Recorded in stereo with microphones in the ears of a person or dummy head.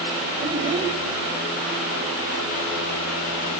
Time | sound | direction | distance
0.4 | a child speaking | 25° right (ahead or behind) | 4 m